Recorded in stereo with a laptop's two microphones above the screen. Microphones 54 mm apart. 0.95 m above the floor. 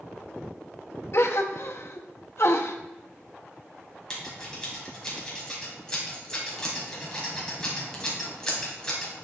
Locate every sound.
1.1 s a gasp: 55° left (ahead or behind), 0.7 m
4.1 s scissors: 15° left (ahead or behind), 1.8 m